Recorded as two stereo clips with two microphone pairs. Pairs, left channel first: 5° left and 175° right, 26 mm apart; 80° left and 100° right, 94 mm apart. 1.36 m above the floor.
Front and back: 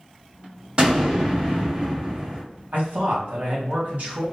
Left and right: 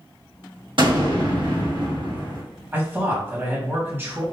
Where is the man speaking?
165° right, 2 m.